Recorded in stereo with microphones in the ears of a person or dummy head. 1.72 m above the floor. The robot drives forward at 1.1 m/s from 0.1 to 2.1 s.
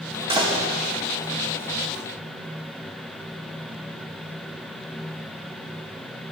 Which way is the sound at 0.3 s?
25° right (ahead or behind).